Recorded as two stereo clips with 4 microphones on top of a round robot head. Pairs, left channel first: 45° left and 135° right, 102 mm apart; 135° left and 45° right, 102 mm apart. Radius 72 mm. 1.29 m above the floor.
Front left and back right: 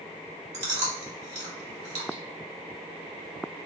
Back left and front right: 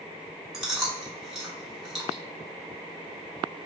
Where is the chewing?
135° right, 1.9 m.